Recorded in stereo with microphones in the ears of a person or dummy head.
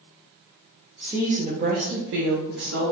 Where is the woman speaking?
5° right (ahead or behind), 0.6 m; by 2.9 s 75° right (ahead or behind), 0.8 m.